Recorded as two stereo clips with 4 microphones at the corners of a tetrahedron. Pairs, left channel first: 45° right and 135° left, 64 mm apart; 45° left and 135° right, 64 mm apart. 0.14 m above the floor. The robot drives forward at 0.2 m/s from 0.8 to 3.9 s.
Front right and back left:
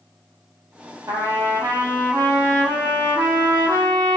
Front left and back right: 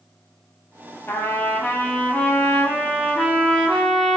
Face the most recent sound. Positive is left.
turn(degrees=135)